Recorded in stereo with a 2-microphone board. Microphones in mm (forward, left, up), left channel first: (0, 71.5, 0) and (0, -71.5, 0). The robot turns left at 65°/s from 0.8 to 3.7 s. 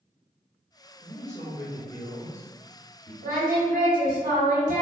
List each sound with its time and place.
1.0 s a man speaking: 110° left, 1.1 m; by 3.1 s 25° right, 1.1 m
3.2 s singing: 85° right, 1.7 m; by 4.8 s 115° right, 1.7 m